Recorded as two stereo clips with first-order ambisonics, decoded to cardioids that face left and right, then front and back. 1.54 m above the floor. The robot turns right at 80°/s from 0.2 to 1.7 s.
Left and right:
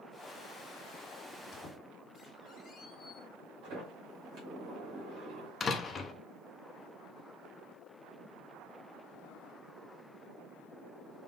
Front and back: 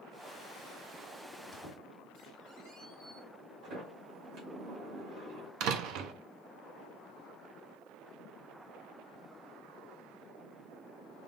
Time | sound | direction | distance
1.3 | a squeak | 105° left | 1.6 m
3.6 | a sliding door | 135° right | 2 m
5.6 | a door slam | 160° left | 0.6 m